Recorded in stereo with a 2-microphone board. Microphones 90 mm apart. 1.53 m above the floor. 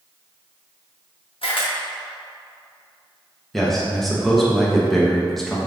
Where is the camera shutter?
90° left, 1.2 m.